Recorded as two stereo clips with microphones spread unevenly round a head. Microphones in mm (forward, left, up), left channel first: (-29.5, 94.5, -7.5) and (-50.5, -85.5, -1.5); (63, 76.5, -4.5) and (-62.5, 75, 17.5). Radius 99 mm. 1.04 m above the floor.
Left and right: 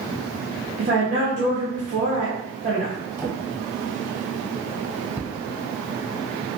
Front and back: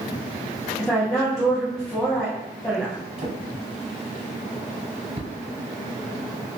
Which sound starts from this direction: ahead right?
A woman speaking, at 0.8 s.